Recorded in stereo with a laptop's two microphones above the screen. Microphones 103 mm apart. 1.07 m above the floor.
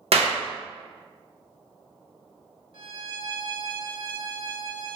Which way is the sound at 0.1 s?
75° right (ahead or behind).